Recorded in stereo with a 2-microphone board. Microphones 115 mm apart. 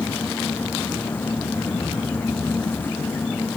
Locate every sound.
Only background noise.